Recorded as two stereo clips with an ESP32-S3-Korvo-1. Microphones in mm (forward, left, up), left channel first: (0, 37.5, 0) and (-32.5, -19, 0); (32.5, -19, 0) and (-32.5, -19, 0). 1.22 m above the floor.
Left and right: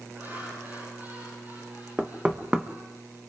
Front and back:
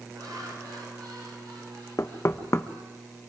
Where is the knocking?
45° right, 1.1 m.